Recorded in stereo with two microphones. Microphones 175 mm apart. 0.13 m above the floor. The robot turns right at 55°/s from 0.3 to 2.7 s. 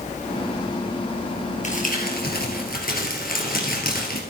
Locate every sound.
1.6 s crumpling: 50° left, 2.5 m; by 4.2 s 110° left, 2.5 m